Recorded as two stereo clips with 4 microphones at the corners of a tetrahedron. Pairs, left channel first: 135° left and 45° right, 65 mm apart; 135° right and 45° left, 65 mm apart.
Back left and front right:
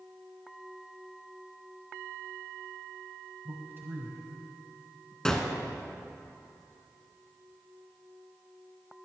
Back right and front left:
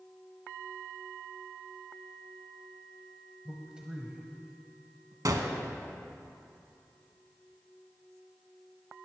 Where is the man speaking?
35° right, 1.3 m; by 5.2 s straight ahead, 1.8 m.